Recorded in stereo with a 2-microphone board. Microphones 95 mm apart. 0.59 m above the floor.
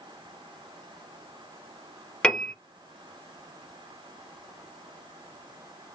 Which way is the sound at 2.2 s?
10° left (ahead or behind).